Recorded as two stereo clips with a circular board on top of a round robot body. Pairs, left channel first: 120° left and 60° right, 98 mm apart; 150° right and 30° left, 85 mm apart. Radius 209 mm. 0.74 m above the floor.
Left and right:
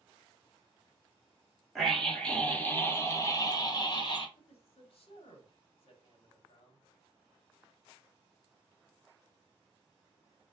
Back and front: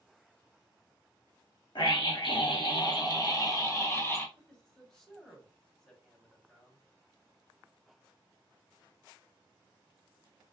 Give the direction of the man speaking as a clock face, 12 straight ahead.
8 o'clock.